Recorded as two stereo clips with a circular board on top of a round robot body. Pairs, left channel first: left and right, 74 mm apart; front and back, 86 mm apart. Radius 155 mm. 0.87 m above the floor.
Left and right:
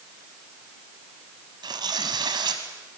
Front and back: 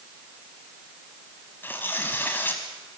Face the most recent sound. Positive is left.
turn(degrees=-70)